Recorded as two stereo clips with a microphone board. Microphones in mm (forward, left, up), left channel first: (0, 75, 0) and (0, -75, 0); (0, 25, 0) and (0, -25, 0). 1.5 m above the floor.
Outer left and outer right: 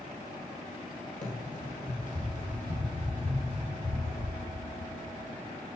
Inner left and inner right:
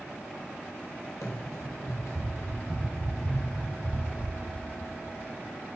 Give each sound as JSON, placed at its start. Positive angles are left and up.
{"t": 1.2, "sound": "running footsteps", "side_deg": 60, "distance_m": 2.5}